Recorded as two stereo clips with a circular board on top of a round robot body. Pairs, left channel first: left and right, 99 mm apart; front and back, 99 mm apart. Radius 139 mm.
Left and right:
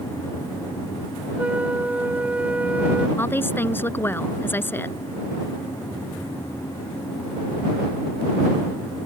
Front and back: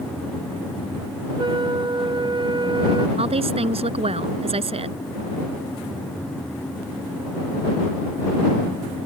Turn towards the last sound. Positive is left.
turn(degrees=160)